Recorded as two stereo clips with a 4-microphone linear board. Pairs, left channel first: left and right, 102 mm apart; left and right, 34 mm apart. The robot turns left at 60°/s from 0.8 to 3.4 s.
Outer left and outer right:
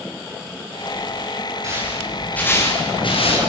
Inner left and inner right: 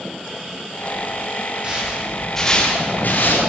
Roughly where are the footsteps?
Right.